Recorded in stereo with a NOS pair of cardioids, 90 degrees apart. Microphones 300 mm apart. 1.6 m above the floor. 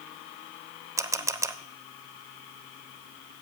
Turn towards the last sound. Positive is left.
turn(degrees=-10)